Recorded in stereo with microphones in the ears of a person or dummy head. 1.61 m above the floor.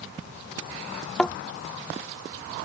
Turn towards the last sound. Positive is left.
turn(degrees=5)  # may be behind; listen again after turning